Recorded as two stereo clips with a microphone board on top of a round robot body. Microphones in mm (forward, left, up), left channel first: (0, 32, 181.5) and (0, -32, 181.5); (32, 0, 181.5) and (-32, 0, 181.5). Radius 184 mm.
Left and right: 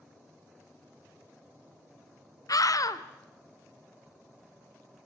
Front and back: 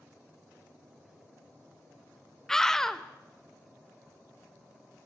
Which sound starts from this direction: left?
A scream, at 2.5 s.